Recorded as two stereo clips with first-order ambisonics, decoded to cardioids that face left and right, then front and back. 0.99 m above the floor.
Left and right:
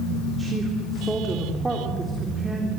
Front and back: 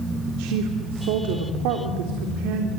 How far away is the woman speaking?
About 3.5 m.